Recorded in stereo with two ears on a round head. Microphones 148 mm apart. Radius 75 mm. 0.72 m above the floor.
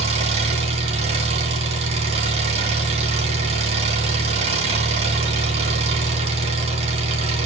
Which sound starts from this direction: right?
An engine running, at 0.0 s.